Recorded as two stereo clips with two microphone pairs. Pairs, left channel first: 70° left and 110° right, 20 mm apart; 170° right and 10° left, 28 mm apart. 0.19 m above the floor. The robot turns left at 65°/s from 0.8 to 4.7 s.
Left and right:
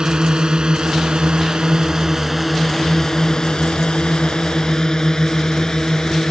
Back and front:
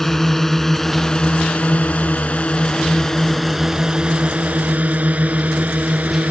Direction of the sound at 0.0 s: 95° right.